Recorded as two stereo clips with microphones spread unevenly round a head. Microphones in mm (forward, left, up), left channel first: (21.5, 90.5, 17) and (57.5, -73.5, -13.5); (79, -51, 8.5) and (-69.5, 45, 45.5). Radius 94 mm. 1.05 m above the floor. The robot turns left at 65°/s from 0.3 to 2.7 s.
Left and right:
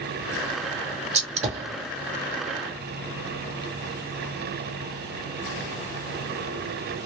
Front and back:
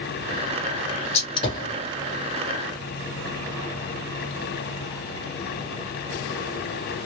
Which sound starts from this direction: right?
A gunshot, at 1.1 s.